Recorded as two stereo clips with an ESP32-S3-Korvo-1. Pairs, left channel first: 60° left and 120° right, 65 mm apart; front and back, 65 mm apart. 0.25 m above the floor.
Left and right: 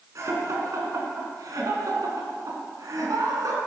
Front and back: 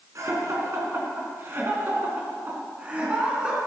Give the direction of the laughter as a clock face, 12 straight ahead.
5 o'clock.